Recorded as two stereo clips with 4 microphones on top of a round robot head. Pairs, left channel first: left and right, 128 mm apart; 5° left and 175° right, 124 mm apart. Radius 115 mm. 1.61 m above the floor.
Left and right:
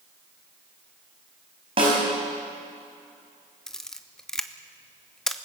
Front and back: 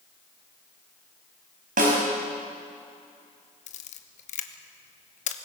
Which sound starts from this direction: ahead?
A camera shutter, at 3.7 s.